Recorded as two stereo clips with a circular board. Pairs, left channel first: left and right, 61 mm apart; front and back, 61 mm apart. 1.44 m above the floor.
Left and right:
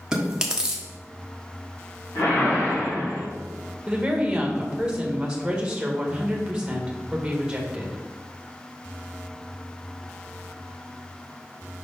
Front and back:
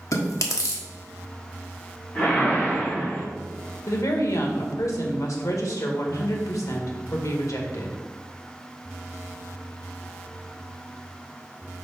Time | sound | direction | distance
0.1 | chewing | 15° right | 1.4 m
2.1 | a whoosh | 60° left | 2.5 m
3.9 | a woman speaking | 15° right | 1.8 m